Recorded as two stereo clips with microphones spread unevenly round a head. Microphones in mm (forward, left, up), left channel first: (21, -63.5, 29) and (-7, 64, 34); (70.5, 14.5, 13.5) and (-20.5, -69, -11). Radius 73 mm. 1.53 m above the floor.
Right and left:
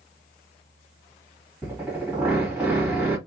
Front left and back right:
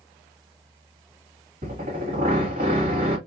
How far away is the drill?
About 2.0 m.